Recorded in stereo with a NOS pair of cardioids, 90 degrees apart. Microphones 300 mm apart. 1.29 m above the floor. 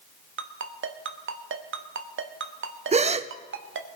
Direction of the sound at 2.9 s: 20° right.